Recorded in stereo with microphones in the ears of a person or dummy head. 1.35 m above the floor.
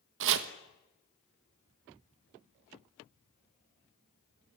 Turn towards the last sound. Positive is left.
turn(degrees=-70)  # may be behind; listen again after turning